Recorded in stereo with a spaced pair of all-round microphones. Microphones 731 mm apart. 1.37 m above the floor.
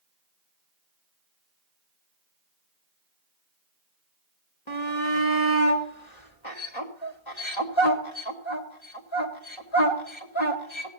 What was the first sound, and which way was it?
A shout, 40° left (ahead or behind).